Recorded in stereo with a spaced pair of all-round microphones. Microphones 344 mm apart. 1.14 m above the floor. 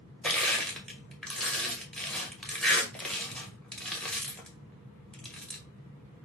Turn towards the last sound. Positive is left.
turn(degrees=0)  # may be behind; listen again after turning